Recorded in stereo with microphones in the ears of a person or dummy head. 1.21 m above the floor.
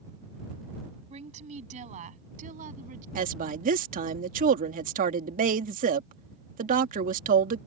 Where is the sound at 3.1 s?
40° right (ahead or behind).